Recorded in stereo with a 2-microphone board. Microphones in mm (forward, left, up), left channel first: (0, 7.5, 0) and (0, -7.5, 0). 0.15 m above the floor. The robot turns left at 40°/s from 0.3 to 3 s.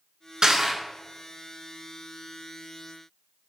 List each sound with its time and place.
0.4 s crushing: 50° right (ahead or behind), 0.5 m; by 0.8 s 40° right (ahead or behind), 0.5 m